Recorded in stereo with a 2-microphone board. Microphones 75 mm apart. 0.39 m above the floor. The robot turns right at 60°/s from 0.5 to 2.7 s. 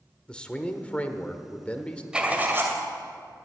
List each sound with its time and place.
0.3 s a man speaking: 15° left (ahead or behind), 1.0 m
2.1 s writing: 165° right, 2 m; by 2.8 s 130° right, 2 m